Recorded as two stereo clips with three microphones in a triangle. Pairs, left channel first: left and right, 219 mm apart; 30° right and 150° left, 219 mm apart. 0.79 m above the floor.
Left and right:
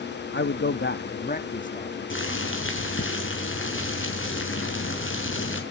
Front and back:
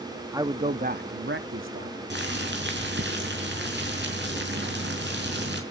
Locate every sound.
0.3 s a man speaking: 80° left, 1.0 m; by 2.0 s 145° left, 1.9 m
2.1 s boiling: 115° left, 4.5 m